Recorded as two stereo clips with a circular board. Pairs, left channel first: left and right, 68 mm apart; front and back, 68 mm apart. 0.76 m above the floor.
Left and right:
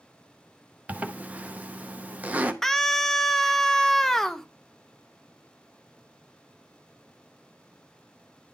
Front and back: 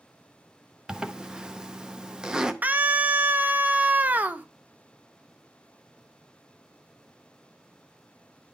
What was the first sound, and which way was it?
A zipper, 120° right.